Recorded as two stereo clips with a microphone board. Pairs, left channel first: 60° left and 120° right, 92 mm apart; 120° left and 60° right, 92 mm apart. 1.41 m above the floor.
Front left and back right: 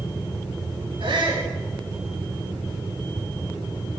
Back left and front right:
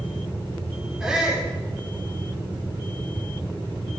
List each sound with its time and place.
1.0 s a shout: 140° right, 9 m